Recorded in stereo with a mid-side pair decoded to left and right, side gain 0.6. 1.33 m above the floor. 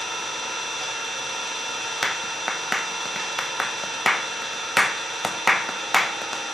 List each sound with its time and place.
0.0 s an engine running: 15° right, 3.5 m
2.0 s a clap: 5° left, 0.8 m